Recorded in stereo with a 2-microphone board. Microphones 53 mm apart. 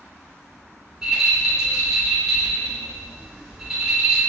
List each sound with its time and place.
1.0 s a rattle: 10° right (ahead or behind), 2.0 m